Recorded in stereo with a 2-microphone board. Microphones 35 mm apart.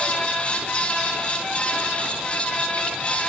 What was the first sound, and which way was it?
Only background noise.